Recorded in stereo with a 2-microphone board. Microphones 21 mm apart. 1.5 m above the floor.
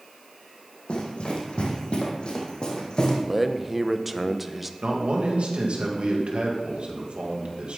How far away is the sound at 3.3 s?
About 0.7 m.